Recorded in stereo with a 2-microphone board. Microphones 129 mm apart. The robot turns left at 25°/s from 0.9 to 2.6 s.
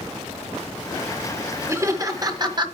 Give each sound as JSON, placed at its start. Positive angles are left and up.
{"t": 1.7, "sound": "laughter", "side_deg": -20, "distance_m": 1.4}